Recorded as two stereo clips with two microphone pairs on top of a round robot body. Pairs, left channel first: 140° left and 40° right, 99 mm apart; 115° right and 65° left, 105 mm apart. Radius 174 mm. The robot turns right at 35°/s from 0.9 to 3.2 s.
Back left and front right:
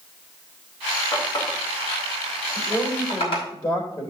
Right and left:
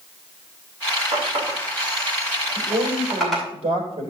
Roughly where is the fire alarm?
I don't hear a fire alarm.